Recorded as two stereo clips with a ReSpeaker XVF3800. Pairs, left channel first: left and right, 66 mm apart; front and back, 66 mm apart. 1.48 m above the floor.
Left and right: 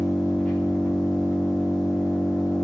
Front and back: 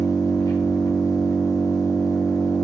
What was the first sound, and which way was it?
An engine running, 15° left.